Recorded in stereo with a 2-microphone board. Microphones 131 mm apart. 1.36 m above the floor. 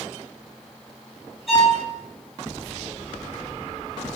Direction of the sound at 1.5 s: Centre (ahead or behind).